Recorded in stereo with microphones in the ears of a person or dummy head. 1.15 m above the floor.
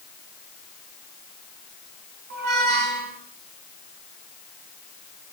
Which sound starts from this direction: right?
A squeak, at 2.3 s.